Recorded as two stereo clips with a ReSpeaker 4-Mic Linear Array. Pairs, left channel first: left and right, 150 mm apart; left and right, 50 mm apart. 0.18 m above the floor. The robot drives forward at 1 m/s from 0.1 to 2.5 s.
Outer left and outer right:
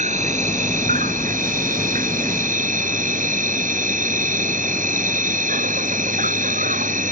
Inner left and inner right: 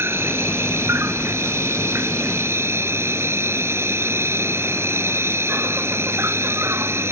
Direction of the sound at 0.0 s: 55° right (ahead or behind).